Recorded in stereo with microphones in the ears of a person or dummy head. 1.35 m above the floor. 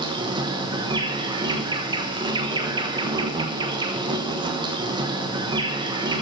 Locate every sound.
0.0 s an insect: 20° right (ahead or behind), 1.2 m